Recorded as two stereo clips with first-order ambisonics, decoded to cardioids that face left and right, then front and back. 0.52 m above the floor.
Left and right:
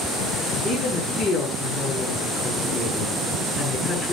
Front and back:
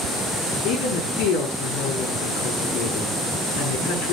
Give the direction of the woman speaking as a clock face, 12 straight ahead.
11 o'clock.